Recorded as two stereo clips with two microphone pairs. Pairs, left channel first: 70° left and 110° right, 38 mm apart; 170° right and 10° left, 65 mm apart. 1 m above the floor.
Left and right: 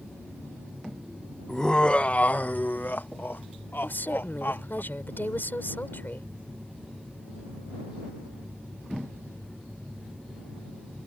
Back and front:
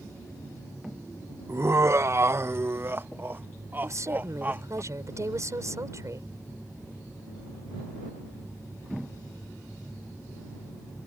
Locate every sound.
1.5 s laughter: straight ahead; by 4.8 s 70° left
3.8 s a woman speaking: 45° left